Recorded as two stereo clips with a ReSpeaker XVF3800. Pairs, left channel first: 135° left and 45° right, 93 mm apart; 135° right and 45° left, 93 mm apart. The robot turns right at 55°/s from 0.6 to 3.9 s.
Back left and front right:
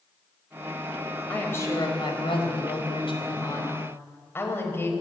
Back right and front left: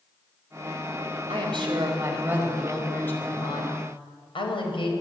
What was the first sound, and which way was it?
A woman speaking, 60° left.